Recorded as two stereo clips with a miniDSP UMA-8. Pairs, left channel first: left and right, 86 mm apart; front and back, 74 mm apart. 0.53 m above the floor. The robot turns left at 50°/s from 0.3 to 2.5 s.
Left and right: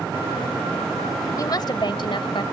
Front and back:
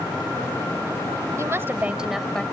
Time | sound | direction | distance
1.4 | a woman speaking | 135° left | ?